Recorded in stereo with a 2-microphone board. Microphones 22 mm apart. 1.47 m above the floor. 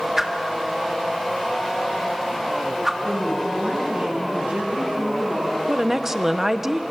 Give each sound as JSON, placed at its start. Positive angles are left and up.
{"t": 0.2, "sound": "a whoosh", "side_deg": -20, "distance_m": 1.8}
{"t": 3.0, "sound": "a woman speaking", "side_deg": -90, "distance_m": 9.5}
{"t": 5.7, "sound": "a woman speaking", "side_deg": -25, "distance_m": 1.1}